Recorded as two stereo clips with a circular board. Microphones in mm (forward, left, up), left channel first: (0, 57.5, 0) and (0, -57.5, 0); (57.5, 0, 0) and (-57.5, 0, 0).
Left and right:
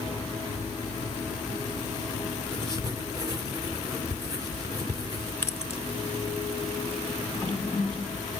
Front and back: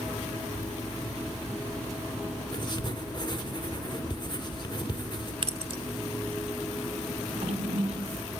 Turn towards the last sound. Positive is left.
turn(degrees=170)